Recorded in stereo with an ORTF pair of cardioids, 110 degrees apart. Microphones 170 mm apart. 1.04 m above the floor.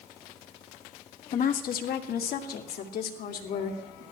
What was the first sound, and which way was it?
A woman speaking, 55° left.